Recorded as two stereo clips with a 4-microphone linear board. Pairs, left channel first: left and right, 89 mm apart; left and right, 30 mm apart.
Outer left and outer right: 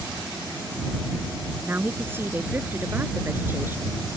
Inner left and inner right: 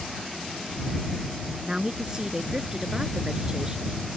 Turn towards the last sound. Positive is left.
turn(degrees=-25)  # may be behind; listen again after turning